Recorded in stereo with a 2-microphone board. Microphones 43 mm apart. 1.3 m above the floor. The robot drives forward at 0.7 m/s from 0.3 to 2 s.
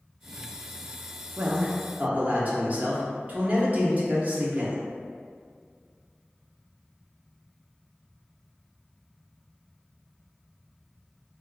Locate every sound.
1.4 s a man speaking: 40° right (ahead or behind), 0.6 m